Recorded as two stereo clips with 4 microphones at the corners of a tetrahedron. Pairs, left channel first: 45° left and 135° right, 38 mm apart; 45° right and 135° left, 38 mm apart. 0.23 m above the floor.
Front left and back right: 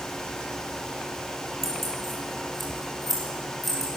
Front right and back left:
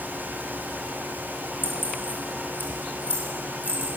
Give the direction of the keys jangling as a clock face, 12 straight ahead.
2 o'clock.